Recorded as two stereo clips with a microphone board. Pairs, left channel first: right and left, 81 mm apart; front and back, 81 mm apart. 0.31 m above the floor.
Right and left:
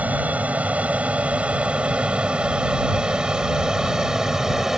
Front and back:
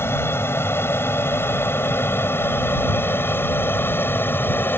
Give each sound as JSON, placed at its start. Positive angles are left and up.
{"t": 0.0, "sound": "an aircraft", "azimuth_deg": 35}